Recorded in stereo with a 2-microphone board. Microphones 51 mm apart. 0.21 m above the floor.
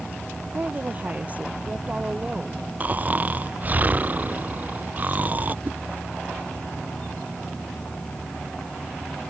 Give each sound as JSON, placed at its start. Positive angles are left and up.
{"t": 0.5, "sound": "a woman speaking", "side_deg": -35}
{"t": 2.8, "sound": "snoring", "side_deg": -35}
{"t": 5.7, "sound": "a whoosh", "side_deg": -40}